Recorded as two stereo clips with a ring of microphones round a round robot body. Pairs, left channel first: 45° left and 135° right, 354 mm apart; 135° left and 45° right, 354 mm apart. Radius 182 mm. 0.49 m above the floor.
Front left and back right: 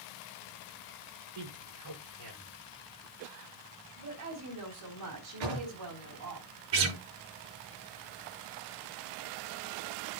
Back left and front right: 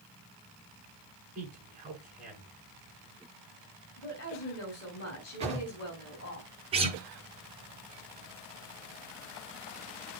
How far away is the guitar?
About 6 m.